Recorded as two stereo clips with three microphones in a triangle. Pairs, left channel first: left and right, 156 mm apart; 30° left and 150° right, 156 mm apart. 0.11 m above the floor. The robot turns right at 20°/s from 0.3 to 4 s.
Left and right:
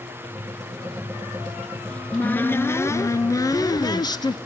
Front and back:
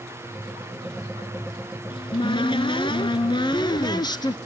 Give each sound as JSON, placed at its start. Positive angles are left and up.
{"t": 1.9, "sound": "a cupboard door", "azimuth_deg": 15, "distance_m": 0.6}